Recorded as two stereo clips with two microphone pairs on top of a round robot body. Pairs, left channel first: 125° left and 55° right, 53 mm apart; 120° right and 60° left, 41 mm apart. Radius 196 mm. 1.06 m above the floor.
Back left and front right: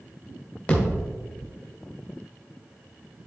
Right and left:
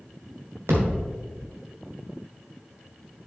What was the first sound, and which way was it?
A thud, 65° left.